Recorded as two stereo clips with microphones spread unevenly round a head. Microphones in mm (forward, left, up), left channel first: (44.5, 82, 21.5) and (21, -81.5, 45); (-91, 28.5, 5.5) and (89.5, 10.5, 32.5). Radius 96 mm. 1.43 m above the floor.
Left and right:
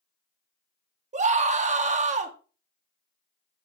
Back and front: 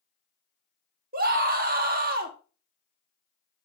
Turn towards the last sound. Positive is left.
turn(degrees=-50)